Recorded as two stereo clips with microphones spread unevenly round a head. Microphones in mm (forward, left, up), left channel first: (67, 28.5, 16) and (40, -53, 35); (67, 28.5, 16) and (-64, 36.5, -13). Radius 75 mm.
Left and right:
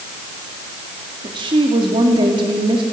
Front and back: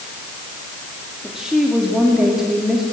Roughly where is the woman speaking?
Right.